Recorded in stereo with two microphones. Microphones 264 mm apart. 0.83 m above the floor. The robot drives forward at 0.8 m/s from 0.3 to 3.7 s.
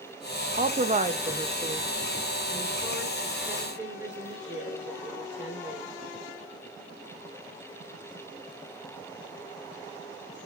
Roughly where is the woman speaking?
Right.